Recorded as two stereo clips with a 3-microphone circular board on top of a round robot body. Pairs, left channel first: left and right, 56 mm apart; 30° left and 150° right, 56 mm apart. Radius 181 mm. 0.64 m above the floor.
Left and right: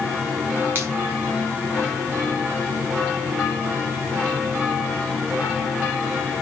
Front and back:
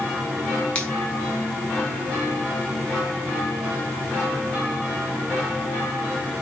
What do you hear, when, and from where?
0.8 s a finger snap: 40° right, 4.5 m